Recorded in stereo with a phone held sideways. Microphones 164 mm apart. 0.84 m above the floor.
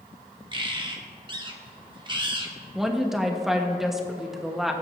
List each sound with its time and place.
0.5 s a bird: 30° right (ahead or behind), 1.3 m
2.8 s a woman speaking: centre (ahead or behind), 1.2 m